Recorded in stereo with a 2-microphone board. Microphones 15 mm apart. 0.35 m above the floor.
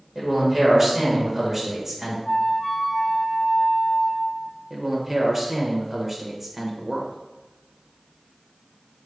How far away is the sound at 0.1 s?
About 1.4 m.